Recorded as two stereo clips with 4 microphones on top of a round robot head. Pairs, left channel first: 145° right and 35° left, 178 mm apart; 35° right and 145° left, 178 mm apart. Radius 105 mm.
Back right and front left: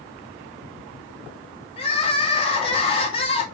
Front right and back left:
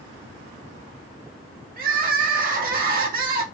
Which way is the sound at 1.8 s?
160° left.